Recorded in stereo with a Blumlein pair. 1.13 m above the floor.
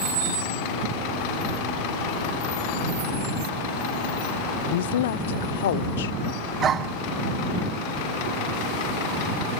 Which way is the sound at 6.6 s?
25° right.